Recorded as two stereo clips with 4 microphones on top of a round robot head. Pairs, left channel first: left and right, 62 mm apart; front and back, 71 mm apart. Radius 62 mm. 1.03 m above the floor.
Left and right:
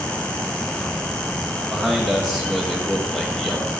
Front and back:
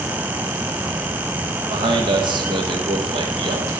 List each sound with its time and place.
1.7 s a man speaking: 175° left, 1.5 m